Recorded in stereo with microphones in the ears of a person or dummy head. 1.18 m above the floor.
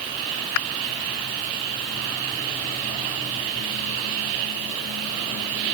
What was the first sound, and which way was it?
Only background noise.